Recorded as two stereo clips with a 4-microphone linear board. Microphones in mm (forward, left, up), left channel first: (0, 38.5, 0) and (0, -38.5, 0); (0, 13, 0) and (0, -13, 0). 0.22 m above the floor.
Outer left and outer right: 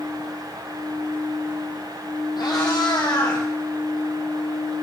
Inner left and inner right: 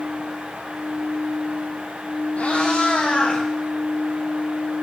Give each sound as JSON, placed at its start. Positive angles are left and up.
{"t": 2.4, "sound": "a cat meowing", "side_deg": 70, "distance_m": 2.5}